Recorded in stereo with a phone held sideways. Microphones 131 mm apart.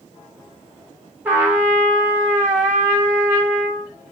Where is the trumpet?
10° right (ahead or behind), 1.5 m.